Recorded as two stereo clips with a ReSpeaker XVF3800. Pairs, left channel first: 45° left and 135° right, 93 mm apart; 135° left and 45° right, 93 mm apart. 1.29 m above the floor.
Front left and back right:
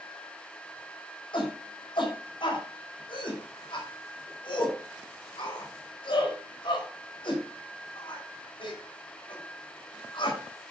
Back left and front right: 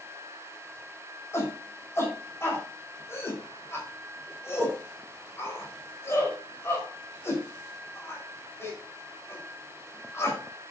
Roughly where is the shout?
Left.